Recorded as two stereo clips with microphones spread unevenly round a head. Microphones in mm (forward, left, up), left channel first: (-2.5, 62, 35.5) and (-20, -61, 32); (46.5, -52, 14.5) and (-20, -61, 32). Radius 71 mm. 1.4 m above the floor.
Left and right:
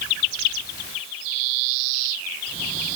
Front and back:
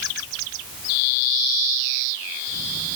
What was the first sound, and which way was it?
Only background noise.